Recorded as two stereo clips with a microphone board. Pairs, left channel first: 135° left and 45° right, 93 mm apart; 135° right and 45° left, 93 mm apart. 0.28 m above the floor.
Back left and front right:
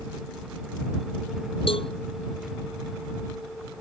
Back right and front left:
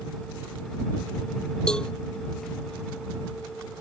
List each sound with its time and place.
1.7 s a cowbell: 145° left